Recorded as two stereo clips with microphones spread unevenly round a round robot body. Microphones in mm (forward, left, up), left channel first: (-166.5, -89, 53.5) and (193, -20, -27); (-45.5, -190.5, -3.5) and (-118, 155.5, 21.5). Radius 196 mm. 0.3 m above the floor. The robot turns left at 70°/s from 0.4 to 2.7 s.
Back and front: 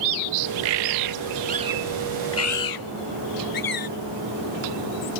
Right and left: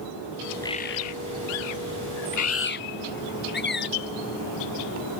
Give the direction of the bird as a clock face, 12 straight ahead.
12 o'clock.